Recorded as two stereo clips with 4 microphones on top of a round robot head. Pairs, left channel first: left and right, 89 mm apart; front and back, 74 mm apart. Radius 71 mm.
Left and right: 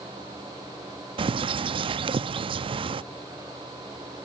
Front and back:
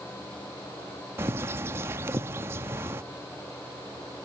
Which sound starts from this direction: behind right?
A bird, at 1.2 s.